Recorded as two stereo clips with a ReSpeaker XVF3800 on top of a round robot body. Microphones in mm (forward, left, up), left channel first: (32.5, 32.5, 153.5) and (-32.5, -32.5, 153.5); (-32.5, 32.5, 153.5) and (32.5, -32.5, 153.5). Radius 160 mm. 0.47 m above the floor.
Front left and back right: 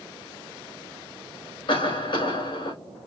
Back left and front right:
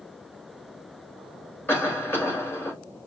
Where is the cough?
70° left, 3.5 m.